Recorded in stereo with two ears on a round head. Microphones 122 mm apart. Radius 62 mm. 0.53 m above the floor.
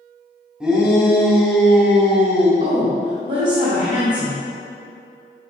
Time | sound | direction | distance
0.6 | a shout | 5° right (ahead or behind) | 1.9 m
2.6 | a woman speaking | 55° right (ahead or behind) | 2 m